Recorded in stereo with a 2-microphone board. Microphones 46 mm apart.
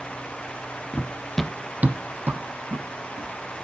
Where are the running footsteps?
55° left (ahead or behind), 0.6 m; by 3.6 s 65° right (ahead or behind), 2.5 m.